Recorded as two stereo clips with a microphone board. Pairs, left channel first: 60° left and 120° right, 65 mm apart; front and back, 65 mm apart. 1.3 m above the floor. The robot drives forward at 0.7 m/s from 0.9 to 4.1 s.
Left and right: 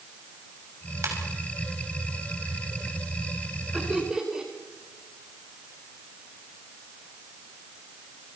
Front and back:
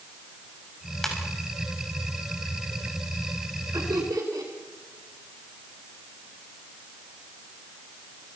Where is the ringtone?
85° right, 6 m.